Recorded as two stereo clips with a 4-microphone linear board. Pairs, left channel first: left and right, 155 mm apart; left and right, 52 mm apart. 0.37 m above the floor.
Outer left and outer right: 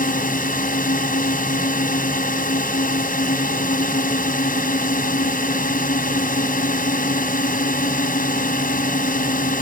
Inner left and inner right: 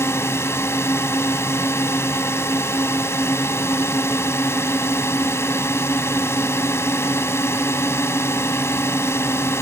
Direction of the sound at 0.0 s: 60° left (ahead or behind).